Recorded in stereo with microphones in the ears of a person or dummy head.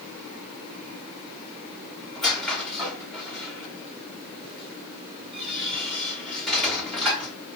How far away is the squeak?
About 1.4 m.